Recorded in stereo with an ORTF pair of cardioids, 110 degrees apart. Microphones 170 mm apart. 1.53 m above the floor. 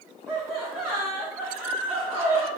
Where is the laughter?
5° right, 0.8 m.